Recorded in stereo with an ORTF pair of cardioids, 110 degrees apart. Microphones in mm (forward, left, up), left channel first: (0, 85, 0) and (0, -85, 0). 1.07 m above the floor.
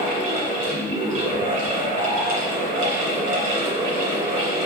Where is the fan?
55° right, 1.6 m.